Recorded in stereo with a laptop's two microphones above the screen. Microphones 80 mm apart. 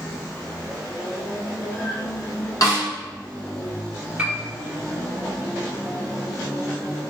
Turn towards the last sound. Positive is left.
turn(degrees=-15)  # may be behind; listen again after turning